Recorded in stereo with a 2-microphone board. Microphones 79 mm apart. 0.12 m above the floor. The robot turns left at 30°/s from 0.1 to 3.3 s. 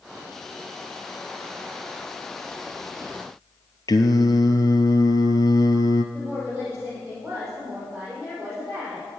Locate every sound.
3.9 s singing: 55° left (ahead or behind), 0.9 m
6.1 s a woman speaking: 10° right (ahead or behind), 5 m